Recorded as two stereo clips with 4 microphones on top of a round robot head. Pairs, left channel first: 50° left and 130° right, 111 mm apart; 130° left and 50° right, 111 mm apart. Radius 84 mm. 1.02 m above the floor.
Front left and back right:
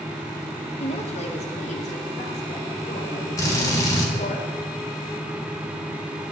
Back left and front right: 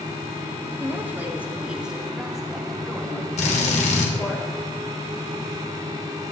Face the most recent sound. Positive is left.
turn(degrees=110)